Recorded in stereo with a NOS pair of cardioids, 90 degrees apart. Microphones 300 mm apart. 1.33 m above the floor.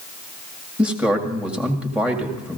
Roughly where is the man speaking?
Ahead.